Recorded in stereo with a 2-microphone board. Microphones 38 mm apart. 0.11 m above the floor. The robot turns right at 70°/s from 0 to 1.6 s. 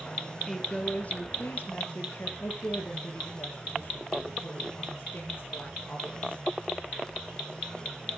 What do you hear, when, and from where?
0.5 s a woman speaking: straight ahead, 2.5 m; by 2.3 s 80° left, 2.5 m
2.4 s a woman speaking: 65° left (ahead or behind), 6.5 m